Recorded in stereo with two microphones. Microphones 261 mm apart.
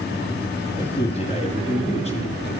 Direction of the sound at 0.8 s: 25° left (ahead or behind).